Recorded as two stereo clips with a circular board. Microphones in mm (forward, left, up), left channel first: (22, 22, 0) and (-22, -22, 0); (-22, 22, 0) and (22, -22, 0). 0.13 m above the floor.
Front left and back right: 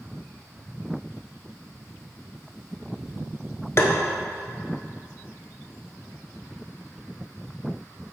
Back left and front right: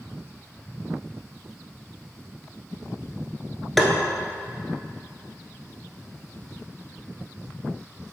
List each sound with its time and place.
3.8 s tapping: 50° left, 1.0 m